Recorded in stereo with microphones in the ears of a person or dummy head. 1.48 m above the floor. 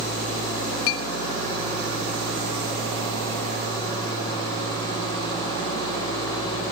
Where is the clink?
70° left (ahead or behind), 1.2 m.